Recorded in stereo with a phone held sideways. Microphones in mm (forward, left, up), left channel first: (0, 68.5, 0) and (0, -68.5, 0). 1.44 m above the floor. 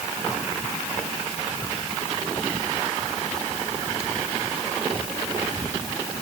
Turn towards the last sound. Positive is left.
No sound to turn to.